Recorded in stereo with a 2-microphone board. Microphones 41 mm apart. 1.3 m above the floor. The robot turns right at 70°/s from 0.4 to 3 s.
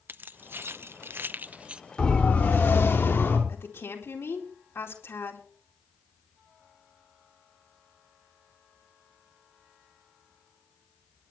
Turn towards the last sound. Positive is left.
turn(degrees=85)